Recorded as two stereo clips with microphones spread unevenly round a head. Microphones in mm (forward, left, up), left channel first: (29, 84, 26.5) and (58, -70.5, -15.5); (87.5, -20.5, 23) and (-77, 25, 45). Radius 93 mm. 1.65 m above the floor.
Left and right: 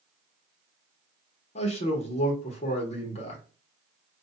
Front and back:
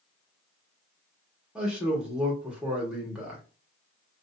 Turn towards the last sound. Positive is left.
turn(degrees=85)